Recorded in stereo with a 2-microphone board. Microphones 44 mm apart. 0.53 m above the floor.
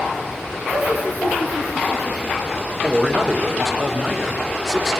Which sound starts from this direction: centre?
A man speaking, at 2.8 s.